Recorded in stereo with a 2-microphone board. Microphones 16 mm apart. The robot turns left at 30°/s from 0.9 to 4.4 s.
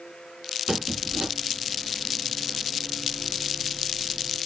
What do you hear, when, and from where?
0.7 s a squeak: 50° right (ahead or behind), 1.0 m; by 1.3 s 45° right (ahead or behind), 1.0 m